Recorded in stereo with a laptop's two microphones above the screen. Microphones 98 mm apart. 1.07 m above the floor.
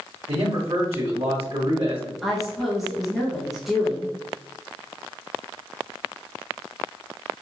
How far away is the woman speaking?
About 1.0 m.